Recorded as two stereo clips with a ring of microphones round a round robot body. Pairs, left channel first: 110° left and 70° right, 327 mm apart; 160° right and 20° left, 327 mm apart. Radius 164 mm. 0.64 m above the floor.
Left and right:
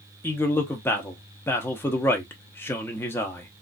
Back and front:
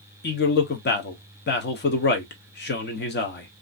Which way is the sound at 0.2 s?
170° right.